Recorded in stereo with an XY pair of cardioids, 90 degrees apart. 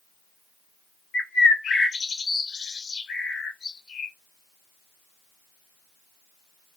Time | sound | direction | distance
1.1 | a bird | 65° left | 0.9 m